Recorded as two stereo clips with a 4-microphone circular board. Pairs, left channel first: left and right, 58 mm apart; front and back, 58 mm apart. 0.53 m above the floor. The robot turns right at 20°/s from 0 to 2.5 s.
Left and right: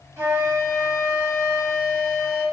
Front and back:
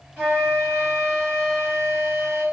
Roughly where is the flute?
Behind right.